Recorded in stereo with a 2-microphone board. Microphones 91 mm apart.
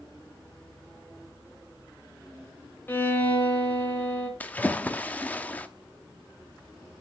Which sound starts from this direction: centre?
A splash, at 4.4 s.